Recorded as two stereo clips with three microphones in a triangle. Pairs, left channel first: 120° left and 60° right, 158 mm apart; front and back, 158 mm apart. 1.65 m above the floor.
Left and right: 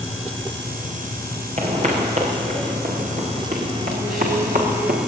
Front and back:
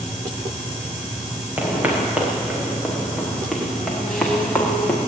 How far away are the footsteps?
About 7 m.